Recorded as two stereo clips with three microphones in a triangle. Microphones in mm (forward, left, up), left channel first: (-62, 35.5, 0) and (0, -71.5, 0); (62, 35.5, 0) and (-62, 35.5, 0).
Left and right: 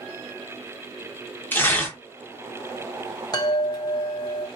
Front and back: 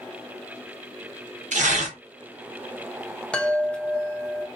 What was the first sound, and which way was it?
Tearing paper, 165° right.